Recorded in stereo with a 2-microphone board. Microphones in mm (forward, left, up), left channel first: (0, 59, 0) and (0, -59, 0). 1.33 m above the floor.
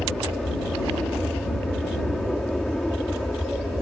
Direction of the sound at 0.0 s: Centre (ahead or behind).